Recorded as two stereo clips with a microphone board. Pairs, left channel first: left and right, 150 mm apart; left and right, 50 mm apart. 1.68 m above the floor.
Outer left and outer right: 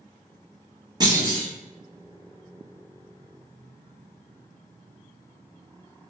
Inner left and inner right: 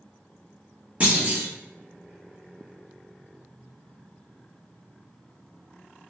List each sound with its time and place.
1.0 s a clunk: 25° right (ahead or behind), 1.1 m